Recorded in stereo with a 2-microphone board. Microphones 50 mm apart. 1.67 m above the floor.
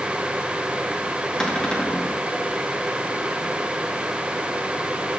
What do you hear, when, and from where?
1.4 s a cupboard door: 15° left (ahead or behind), 2.5 m